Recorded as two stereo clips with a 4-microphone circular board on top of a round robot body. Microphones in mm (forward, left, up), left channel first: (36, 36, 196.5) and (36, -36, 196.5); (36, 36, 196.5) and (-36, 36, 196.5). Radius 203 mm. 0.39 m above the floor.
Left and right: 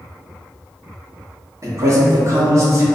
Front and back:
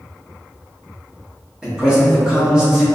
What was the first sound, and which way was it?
A man speaking, 105° right.